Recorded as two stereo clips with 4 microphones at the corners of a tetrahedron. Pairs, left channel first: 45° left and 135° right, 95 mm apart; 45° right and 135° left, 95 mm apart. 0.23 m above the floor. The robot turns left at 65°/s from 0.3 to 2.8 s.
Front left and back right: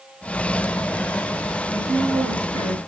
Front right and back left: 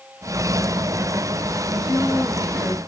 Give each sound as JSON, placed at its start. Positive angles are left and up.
{"t": 1.7, "sound": "a woman speaking", "azimuth_deg": -85, "distance_m": 3.0}